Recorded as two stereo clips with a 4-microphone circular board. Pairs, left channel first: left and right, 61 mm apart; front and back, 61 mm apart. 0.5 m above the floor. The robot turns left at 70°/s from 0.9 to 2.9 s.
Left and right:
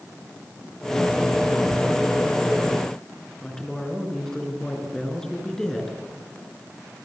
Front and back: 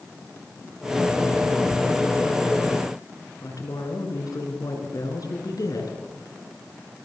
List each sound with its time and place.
3.4 s a woman speaking: 10° left, 6.5 m